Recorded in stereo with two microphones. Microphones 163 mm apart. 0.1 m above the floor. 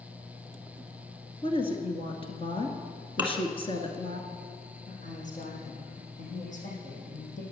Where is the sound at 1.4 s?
35° left (ahead or behind), 1.7 m.